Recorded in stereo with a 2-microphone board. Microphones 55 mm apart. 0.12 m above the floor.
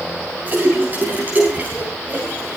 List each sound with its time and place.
0.5 s a splash: 35° right (ahead or behind), 9 m